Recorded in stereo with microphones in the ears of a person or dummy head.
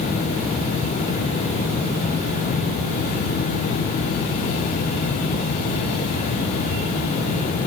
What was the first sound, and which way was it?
Only background noise.